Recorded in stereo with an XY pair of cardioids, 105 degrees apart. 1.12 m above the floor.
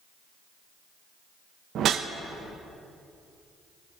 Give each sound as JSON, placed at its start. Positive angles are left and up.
{"t": 1.8, "sound": "a whoosh", "azimuth_deg": -65, "distance_m": 0.7}